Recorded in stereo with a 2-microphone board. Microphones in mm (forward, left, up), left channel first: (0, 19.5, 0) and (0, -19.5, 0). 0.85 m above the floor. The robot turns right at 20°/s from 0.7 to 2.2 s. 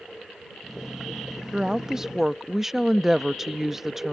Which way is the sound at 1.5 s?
20° right (ahead or behind).